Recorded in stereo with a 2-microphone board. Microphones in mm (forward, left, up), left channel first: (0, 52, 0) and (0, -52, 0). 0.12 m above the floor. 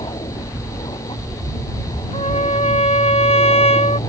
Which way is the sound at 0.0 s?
55° left (ahead or behind).